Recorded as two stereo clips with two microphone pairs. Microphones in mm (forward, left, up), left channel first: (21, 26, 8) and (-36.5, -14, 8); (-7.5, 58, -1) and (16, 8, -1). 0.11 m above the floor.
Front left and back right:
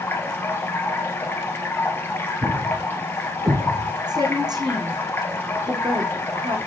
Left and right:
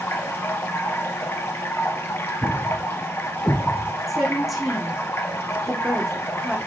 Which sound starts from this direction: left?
Running water, at 0.0 s.